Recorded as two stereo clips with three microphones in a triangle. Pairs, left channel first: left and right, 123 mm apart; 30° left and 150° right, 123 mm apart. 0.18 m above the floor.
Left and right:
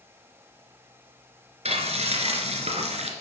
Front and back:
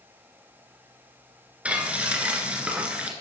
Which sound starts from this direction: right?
Frying, at 1.6 s.